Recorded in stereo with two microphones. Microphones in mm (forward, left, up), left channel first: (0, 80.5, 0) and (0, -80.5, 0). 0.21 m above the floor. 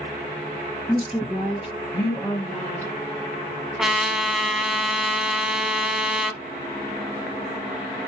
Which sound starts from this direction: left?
A woman speaking, at 0.9 s.